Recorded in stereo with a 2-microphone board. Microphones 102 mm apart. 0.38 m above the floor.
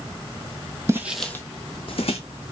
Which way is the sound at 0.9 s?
25° right (ahead or behind).